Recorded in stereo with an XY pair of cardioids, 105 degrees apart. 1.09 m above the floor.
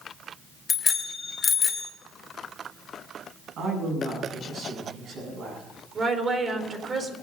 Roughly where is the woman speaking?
Ahead right.